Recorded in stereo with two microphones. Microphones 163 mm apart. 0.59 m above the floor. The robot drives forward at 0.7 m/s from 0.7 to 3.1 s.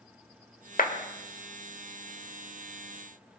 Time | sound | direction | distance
0.8 | a clap | 60° left (ahead or behind) | 1.5 m